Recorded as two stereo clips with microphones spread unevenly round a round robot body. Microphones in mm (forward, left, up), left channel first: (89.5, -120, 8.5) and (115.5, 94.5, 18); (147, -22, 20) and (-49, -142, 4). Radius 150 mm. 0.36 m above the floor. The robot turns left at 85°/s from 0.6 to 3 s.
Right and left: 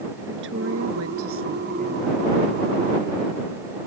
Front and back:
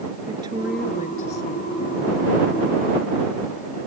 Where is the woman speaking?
135° left; by 2.2 s straight ahead.